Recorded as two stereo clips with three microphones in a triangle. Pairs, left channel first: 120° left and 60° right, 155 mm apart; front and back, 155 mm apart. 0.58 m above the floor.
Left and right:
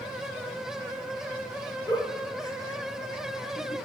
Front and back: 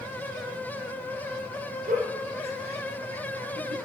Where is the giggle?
175° right, 1.0 m.